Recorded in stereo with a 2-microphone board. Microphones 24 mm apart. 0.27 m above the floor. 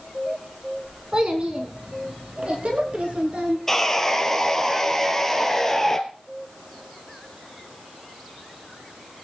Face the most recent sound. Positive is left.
turn(degrees=15)  # may be behind; listen again after turning